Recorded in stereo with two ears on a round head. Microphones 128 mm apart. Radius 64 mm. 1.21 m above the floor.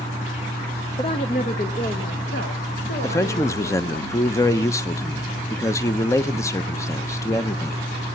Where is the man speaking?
20° left (ahead or behind), 0.8 m.